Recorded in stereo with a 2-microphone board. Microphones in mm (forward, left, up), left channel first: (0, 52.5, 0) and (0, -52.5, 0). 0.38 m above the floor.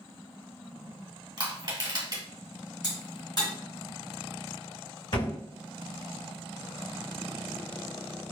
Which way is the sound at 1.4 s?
45° right (ahead or behind).